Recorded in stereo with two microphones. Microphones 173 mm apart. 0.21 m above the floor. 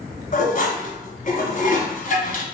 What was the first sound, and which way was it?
Dishes clattering, 50° left (ahead or behind).